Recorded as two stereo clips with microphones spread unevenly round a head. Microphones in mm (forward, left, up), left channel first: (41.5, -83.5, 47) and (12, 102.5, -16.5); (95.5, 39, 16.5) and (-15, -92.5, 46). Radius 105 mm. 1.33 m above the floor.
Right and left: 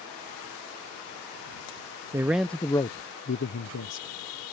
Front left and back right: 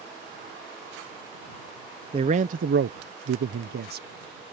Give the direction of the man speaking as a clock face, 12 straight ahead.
7 o'clock.